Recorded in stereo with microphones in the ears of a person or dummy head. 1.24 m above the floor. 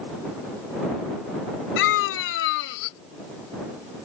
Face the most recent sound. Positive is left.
turn(degrees=75)  # may be behind; listen again after turning